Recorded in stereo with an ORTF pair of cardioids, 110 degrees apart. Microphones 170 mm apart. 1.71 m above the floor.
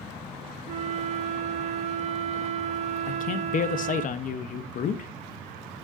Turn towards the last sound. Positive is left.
turn(degrees=50)